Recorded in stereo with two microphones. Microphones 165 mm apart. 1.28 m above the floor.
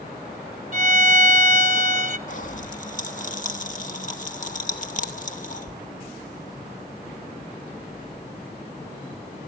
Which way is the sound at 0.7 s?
45° right (ahead or behind).